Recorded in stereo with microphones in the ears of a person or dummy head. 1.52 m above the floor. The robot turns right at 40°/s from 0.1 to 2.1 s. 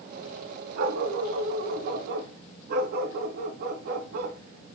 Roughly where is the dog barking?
Behind right.